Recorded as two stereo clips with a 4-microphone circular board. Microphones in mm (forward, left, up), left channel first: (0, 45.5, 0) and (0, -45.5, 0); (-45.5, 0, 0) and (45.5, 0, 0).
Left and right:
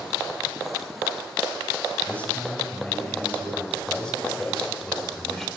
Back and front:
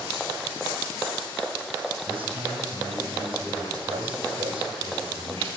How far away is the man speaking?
About 6.5 m.